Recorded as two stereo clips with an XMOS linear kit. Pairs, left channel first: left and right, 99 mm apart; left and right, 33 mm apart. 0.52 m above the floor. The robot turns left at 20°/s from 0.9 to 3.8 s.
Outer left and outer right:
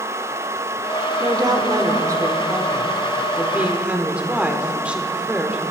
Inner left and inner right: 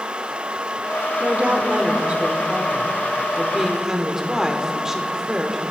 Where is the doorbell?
I don't hear a doorbell.